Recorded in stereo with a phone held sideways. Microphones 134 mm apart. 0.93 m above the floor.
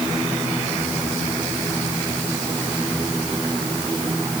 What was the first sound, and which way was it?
Only background noise.